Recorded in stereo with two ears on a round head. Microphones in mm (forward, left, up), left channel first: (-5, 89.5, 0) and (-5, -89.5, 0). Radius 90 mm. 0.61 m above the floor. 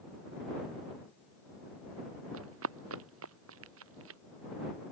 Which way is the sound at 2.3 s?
80° right.